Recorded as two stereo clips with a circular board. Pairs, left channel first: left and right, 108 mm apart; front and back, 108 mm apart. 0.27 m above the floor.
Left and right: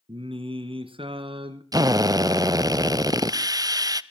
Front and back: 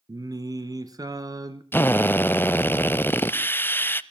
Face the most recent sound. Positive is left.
turn(degrees=-60)